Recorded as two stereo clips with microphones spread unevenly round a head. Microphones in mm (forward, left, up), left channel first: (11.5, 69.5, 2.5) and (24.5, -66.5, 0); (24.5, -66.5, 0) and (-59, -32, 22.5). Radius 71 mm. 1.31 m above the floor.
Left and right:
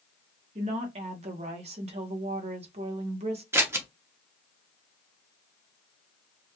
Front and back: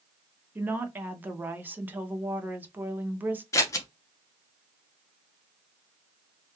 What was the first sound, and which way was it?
A woman speaking, 130° right.